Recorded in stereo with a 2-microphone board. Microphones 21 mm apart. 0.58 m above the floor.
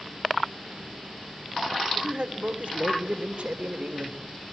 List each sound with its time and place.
1.9 s a man speaking: 60° right (ahead or behind), 2.0 m; by 4.2 s 55° right (ahead or behind), 2 m